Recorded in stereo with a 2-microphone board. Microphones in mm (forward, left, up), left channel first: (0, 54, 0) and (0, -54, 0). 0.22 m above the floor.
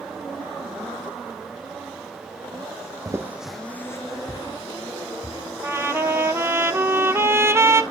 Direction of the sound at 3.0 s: 35° right (ahead or behind).